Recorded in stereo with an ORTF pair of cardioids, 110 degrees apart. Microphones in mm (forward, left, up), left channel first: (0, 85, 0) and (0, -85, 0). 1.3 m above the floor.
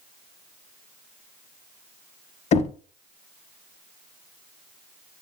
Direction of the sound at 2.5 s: 40° left.